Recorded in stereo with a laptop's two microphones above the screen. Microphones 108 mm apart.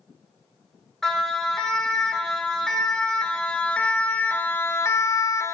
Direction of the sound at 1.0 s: 5° left (ahead or behind).